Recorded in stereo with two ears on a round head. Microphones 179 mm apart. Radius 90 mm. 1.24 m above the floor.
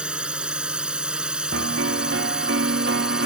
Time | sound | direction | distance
0.0 | a drone | 5° right (ahead or behind) | ?
1.5 | a piano | 65° right (ahead or behind) | ?